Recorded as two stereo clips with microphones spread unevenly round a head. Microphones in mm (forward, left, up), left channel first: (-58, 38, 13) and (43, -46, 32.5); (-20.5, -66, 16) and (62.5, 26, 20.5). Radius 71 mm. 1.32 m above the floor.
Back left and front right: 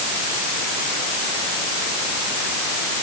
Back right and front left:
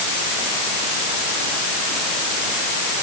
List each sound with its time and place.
Only background noise.